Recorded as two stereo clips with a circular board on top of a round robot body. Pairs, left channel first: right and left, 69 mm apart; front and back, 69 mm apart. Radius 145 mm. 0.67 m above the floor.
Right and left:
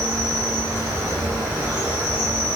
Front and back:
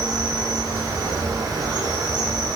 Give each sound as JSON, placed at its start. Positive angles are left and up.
{"t": 0.0, "sound": "an insect", "azimuth_deg": 145, "distance_m": 1.0}